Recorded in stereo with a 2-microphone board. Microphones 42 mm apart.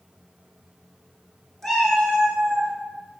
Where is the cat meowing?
5° left (ahead or behind), 0.7 m; by 2.7 s 30° left (ahead or behind), 1.2 m.